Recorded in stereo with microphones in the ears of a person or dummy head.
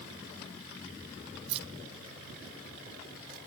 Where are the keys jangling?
30° right (ahead or behind); by 3.4 s 45° right (ahead or behind).